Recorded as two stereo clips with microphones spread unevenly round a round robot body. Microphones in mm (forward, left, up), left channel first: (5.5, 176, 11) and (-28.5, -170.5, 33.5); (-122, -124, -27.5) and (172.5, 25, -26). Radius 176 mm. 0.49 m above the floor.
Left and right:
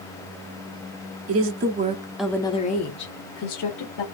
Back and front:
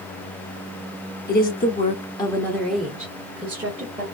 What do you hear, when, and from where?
1.3 s a woman speaking: 110° right, 0.8 m; by 4.0 s 100° left, 1.2 m